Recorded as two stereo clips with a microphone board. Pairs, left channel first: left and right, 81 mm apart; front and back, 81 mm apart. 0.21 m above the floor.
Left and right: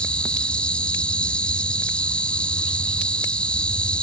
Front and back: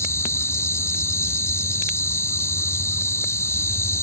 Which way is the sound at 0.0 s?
25° left.